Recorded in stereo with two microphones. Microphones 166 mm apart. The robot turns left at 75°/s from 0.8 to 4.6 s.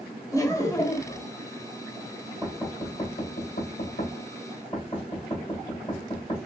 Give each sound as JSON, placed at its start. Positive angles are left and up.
{"t": 0.3, "sound": "laughter", "azimuth_deg": 160, "distance_m": 0.9}
{"t": 2.4, "sound": "knocking", "side_deg": -20, "distance_m": 1.5}